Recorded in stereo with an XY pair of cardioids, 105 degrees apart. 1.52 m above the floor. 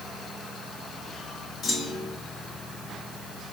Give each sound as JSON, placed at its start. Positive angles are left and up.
{"t": 1.6, "sound": "a clunk", "azimuth_deg": 70, "distance_m": 3.0}